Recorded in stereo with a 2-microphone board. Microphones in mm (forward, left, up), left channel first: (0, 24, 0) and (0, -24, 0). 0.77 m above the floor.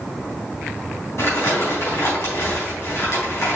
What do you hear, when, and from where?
1.2 s crumpling: 60° left (ahead or behind), 4 m